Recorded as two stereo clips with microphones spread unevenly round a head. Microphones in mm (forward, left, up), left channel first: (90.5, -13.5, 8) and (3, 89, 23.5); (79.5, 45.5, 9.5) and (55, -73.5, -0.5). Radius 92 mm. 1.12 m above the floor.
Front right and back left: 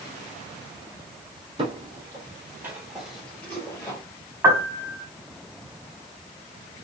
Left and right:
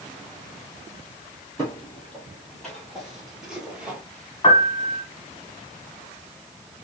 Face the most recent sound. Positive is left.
turn(degrees=65)